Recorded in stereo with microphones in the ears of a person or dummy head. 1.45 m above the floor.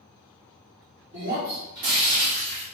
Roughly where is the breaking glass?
Right.